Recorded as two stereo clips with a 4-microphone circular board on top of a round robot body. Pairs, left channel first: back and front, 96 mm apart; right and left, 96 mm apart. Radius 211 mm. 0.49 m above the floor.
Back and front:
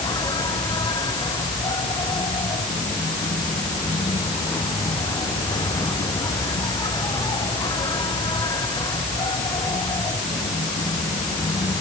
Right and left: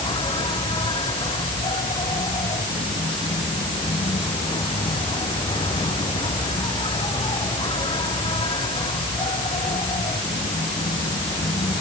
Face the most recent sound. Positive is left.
turn(degrees=-130)